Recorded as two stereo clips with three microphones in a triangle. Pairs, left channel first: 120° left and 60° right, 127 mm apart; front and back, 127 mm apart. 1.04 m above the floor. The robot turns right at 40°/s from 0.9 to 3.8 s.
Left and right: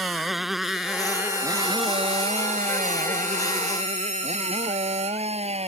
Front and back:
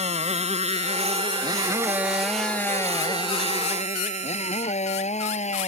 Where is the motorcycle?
150° right; by 5.7 s 25° right.